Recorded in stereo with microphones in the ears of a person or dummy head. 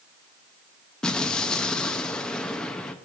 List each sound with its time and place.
1.0 s an explosion: 5° left (ahead or behind), 0.6 m